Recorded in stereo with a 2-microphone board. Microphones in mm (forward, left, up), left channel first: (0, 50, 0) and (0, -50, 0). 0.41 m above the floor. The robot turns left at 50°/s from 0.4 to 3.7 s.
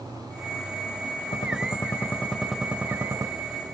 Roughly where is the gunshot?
Ahead left.